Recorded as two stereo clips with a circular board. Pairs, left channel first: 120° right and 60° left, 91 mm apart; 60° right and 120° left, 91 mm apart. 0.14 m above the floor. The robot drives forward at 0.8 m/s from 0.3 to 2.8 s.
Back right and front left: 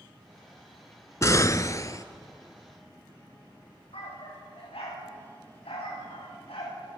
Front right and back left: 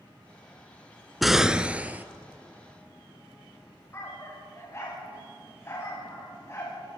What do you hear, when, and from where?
1.2 s an explosion: 150° right, 0.6 m; by 2.0 s 170° right, 1.1 m
3.9 s a dog barking: 120° right, 8 m